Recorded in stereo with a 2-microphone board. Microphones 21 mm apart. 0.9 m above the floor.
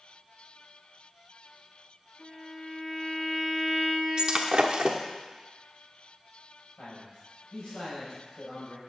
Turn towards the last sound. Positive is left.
turn(degrees=50)  # may be behind; listen again after turning